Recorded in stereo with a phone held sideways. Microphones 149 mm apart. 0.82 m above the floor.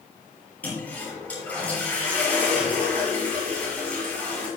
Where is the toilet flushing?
10° left (ahead or behind), 5.5 m.